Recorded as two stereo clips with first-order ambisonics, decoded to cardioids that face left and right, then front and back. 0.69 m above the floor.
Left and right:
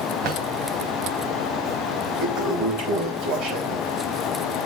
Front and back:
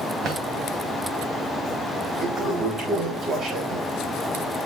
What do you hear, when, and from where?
0.2 s a drawer: 130° right, 2.5 m
2.2 s a toilet flushing: 125° right, 5 m